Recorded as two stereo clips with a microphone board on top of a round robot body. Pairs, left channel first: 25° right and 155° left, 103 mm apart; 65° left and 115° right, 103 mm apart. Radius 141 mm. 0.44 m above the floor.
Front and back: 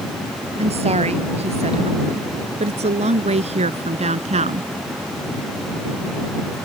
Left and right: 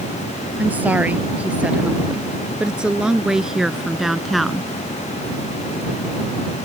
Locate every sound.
0.6 s a woman speaking: 170° left; by 4.7 s 155° left